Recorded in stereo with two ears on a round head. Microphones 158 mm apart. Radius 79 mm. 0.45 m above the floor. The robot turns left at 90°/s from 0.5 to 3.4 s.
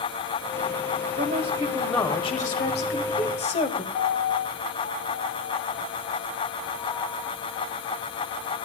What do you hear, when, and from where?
1.2 s a woman speaking: 115° right, 1.6 m; by 3.8 s 45° left, 1.6 m
3.9 s a piano: 35° left (ahead or behind), 5.5 m